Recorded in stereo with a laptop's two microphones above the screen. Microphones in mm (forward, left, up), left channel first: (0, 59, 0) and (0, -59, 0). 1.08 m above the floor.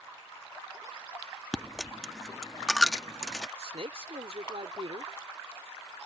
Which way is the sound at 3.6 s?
65° right (ahead or behind).